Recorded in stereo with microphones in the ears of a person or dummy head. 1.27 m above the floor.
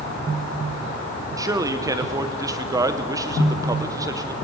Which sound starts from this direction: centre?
A man speaking, at 1.4 s.